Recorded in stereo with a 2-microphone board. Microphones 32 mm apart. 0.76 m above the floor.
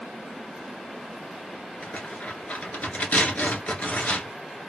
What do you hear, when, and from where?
1.8 s tearing paper: 55° left (ahead or behind), 1.8 m